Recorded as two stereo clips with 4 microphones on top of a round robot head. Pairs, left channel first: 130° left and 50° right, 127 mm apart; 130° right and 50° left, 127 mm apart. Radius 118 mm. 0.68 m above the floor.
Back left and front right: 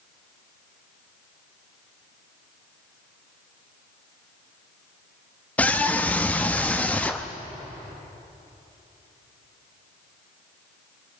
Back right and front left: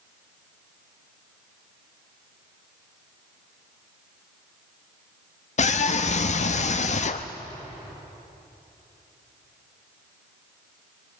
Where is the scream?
150° right, 0.8 m.